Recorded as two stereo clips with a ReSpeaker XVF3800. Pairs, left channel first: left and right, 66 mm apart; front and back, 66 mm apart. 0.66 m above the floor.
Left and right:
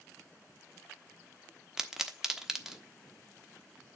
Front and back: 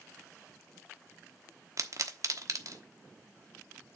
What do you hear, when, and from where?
1.8 s a pop: 170° right, 1.1 m